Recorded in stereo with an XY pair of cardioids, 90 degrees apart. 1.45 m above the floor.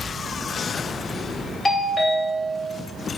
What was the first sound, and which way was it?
A doorbell, 35° left.